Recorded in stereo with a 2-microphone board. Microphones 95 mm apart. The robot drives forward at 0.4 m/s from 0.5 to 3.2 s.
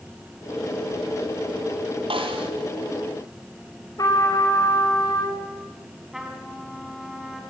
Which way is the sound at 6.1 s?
5° right (ahead or behind).